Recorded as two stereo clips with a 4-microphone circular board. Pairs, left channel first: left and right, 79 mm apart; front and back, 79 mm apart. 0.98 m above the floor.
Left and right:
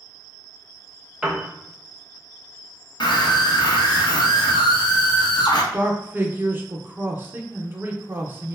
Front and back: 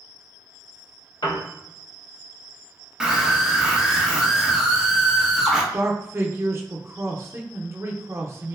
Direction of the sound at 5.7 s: 140° right.